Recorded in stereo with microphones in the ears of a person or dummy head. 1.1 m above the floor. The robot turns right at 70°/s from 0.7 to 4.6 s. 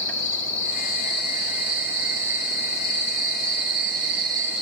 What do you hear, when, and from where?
0.0 s an insect: 85° left, 3 m; by 4.6 s 5° right, 3 m